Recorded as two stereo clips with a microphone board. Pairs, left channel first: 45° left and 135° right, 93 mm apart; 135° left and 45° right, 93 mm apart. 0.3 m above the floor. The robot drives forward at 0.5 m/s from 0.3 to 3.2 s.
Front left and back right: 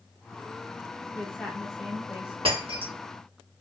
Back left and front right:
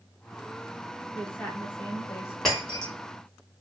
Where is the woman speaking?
90° left, 1.1 m; by 2.4 s 150° left, 1.2 m.